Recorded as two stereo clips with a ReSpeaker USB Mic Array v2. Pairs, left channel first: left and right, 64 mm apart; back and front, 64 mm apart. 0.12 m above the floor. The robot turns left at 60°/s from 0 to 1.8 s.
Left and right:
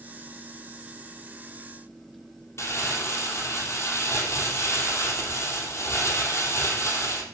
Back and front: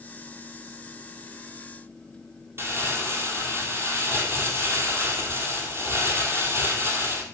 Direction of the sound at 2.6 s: 45° left.